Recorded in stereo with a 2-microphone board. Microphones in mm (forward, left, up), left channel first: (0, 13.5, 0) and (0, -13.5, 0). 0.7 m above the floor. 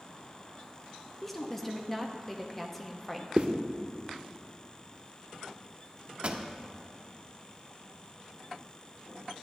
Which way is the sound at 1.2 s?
10° left (ahead or behind).